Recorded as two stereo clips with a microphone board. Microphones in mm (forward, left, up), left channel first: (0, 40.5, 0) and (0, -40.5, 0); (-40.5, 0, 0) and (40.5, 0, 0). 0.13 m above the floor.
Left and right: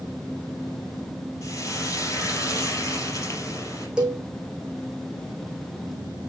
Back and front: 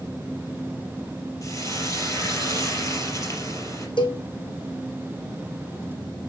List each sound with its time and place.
1.4 s frying: 135° left, 3.5 m
4.0 s a cowbell: 170° right, 1.9 m